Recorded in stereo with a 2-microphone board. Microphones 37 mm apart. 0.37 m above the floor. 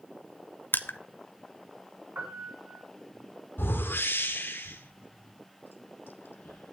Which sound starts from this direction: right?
A piano, at 2.1 s.